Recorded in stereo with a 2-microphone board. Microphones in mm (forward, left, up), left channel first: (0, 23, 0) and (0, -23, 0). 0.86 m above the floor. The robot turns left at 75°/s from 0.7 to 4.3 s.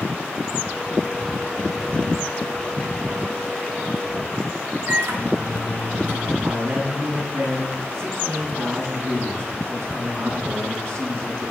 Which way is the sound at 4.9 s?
70° right (ahead or behind).